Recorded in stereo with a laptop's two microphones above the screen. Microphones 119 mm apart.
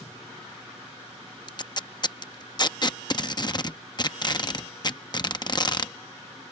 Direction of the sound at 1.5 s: 35° left (ahead or behind).